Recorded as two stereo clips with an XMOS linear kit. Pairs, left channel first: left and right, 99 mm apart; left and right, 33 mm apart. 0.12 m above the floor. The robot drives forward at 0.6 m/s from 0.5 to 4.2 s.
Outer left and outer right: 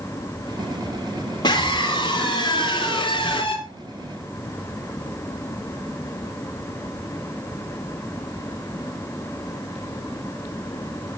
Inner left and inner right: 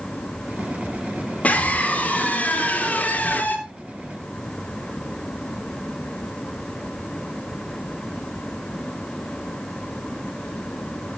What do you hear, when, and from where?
1.4 s a scream: 50° left (ahead or behind), 3.5 m; by 3.6 s 55° left (ahead or behind), 3 m